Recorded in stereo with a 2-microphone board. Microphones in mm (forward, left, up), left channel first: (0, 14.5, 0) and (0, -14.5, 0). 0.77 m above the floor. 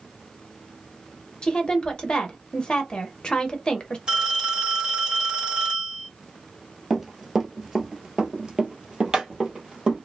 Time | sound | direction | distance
1.4 | a woman speaking | 25° left (ahead or behind) | 0.7 m
4.1 | a phone ringing | 25° right (ahead or behind) | 1.3 m
6.9 | running footsteps | 5° right (ahead or behind) | 0.9 m